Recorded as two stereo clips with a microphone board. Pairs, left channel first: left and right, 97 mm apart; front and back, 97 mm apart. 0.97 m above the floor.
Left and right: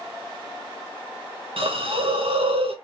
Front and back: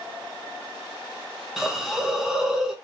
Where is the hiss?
95° right, 0.7 m.